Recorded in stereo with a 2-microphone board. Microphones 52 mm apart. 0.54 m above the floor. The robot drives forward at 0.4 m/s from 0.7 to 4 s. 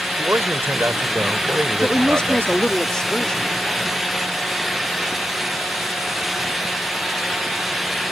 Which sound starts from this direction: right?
A man speaking, at 0.2 s.